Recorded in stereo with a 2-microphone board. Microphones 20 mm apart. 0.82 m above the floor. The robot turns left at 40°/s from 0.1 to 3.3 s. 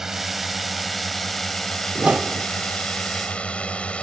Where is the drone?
20° right (ahead or behind); by 4.0 s 75° left (ahead or behind).